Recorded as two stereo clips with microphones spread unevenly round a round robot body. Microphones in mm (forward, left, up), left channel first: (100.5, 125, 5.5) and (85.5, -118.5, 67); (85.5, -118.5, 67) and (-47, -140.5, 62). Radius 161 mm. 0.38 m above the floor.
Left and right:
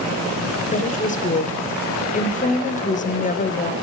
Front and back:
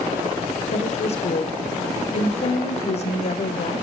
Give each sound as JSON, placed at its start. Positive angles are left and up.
{"t": 0.7, "sound": "a woman speaking", "azimuth_deg": 45, "distance_m": 1.4}